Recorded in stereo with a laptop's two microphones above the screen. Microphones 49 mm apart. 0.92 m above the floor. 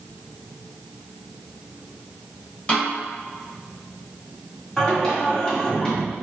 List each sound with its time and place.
2.7 s a snare drum: 20° left (ahead or behind), 1.2 m
4.8 s singing: 15° left (ahead or behind), 1.5 m